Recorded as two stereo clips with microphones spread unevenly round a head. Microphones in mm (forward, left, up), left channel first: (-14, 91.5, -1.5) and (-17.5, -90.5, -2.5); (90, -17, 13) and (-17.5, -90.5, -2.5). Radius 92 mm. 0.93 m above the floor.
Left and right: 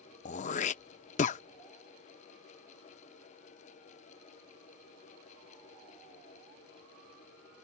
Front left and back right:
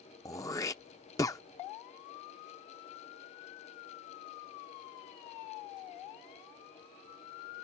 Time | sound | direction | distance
0.2 | throat clearing | 75° left | ?